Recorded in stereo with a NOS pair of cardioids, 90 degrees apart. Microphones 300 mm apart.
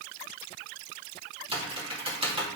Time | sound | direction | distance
1.5 | typing on a keyboard | 20° right | 2.5 m